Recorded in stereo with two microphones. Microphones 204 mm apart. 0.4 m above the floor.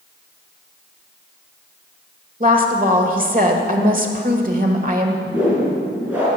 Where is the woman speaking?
45° right (ahead or behind), 1.6 m.